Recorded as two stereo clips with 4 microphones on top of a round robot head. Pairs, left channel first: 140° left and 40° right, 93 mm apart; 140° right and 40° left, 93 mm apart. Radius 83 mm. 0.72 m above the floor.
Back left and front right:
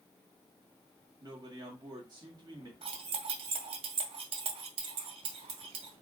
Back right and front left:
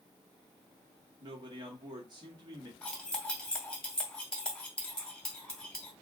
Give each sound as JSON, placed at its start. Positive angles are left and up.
{"t": 1.2, "sound": "a man speaking", "azimuth_deg": 5, "distance_m": 1.8}
{"t": 2.8, "sound": "cutlery clinking", "azimuth_deg": -60, "distance_m": 1.3}